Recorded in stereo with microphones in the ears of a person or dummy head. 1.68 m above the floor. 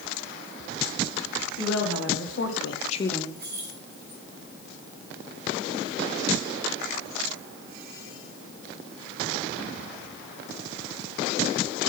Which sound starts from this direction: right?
Keys jangling, at 3.4 s.